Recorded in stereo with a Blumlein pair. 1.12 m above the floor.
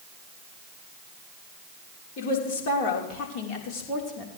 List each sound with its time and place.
2.2 s a woman speaking: 45° left, 4 m; by 4.3 s 25° left, 3.5 m